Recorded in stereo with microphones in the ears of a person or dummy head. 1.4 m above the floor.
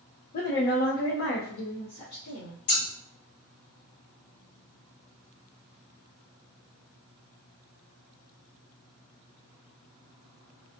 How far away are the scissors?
About 2 m.